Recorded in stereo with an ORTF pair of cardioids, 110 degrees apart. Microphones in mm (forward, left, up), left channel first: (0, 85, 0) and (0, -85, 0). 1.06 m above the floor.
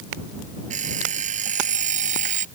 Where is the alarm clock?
50° right.